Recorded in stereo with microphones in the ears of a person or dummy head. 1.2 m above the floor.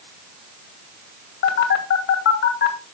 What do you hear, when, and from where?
1.4 s a phone buzzing: 60° left (ahead or behind), 2 m